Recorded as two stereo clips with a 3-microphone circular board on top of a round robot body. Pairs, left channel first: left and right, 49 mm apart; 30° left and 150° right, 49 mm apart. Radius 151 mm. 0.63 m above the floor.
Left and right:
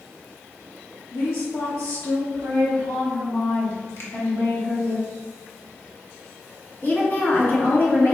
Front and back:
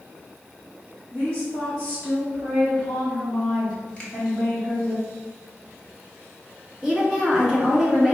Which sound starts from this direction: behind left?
A woman speaking, at 6.8 s.